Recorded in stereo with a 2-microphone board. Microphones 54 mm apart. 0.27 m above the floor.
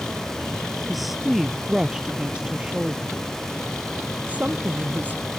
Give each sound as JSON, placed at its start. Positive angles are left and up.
{"t": 0.9, "sound": "a woman speaking", "side_deg": 0}